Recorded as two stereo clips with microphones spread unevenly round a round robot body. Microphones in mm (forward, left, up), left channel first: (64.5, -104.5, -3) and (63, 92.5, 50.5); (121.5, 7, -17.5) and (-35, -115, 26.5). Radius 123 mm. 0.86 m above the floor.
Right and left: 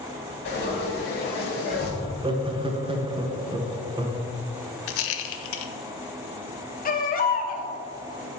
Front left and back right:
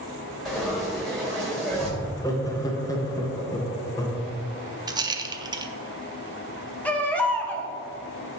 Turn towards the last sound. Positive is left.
turn(degrees=-45)